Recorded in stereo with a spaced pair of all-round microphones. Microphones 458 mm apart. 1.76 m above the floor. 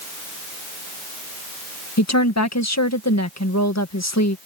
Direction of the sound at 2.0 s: 35° left (ahead or behind).